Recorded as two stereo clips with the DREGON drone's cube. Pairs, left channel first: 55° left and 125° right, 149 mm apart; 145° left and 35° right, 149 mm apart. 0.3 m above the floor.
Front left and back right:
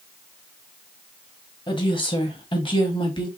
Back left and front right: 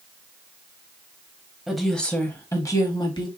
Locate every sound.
1.7 s a woman speaking: 50° left, 1.1 m; by 3.3 s 100° left, 1.4 m